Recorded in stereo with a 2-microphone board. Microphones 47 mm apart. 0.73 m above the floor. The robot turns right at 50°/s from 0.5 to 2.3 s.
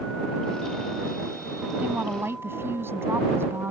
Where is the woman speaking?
35° right (ahead or behind); by 3.7 s 60° right (ahead or behind).